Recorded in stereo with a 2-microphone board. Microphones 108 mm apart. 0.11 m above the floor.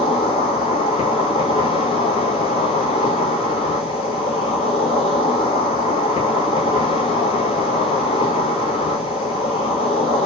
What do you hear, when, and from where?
0.0 s an insect: 65° left (ahead or behind), 0.9 m